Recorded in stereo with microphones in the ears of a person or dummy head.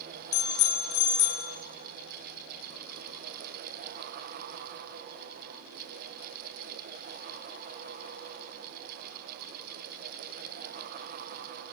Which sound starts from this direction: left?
A bicycle bell, at 0.3 s.